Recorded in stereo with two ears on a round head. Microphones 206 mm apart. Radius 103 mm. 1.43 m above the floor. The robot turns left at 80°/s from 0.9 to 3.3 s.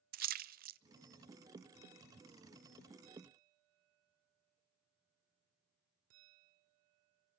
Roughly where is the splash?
Right.